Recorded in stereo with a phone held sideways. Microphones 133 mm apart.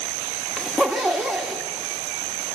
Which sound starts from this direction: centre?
A zipper, at 0.6 s.